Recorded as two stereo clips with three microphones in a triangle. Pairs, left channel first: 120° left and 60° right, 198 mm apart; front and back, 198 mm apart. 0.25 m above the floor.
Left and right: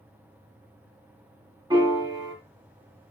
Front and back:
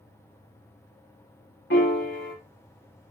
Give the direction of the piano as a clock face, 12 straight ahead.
12 o'clock.